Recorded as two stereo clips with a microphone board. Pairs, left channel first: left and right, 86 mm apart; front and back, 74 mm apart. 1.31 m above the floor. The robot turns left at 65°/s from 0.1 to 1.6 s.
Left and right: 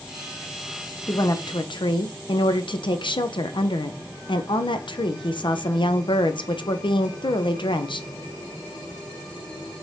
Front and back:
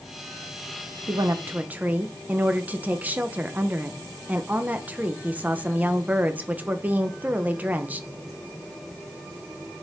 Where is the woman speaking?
145° left, 0.6 m; by 8.1 s 110° left, 0.6 m.